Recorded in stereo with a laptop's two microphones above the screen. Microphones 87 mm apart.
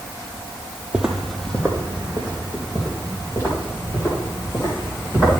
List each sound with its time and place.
0.9 s footsteps: 10° right (ahead or behind), 1.0 m; by 5.4 s 35° left (ahead or behind), 5.5 m